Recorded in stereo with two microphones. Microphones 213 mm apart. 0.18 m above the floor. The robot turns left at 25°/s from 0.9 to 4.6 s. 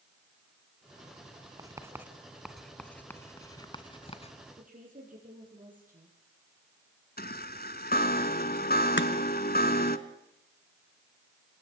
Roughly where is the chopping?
Left.